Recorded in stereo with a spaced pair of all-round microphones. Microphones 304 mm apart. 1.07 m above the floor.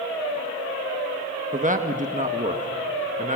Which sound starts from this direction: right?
A man speaking, at 1.5 s.